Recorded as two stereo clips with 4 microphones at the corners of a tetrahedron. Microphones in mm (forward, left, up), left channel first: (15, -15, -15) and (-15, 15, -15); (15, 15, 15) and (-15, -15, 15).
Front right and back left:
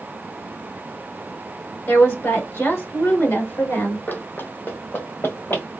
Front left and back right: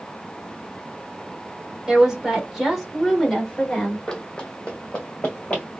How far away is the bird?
I don't hear a bird.